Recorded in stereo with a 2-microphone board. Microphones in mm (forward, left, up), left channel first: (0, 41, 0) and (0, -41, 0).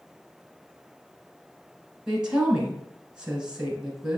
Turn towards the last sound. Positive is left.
turn(degrees=-10)  # may be behind; listen again after turning